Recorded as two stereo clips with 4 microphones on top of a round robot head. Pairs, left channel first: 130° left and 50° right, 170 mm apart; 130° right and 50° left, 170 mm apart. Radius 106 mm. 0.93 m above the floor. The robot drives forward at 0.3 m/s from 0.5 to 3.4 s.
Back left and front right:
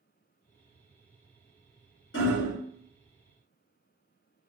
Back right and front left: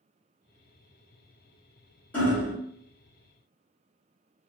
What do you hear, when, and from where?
2.1 s hammering: 150° left, 1.7 m